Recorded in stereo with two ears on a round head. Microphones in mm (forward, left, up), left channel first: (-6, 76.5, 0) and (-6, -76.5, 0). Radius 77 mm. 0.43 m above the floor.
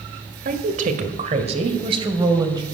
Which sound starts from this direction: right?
A woman speaking, at 0.5 s.